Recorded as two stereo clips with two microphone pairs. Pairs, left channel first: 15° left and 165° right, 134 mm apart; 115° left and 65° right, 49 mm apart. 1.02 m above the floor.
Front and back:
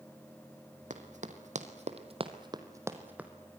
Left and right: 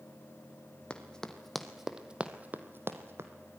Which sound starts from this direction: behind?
Running footsteps, at 0.9 s.